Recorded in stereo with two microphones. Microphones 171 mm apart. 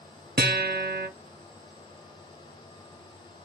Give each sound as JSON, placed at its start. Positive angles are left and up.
{"t": 0.4, "sound": "a guitar", "side_deg": -70, "distance_m": 0.6}